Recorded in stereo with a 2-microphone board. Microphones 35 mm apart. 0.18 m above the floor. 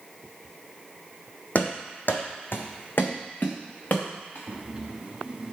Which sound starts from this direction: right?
Breathing, at 4.5 s.